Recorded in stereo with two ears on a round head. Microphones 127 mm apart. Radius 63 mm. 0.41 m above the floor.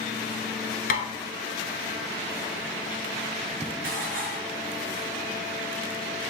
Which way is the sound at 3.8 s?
65° right (ahead or behind).